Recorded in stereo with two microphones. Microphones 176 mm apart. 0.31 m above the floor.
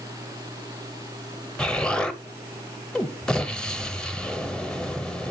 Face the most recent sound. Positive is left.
turn(degrees=5)  # may be behind; listen again after turning